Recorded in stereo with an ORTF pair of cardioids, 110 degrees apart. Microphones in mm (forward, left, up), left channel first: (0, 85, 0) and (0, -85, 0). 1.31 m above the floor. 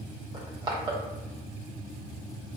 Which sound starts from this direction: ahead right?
Crushing, at 0.3 s.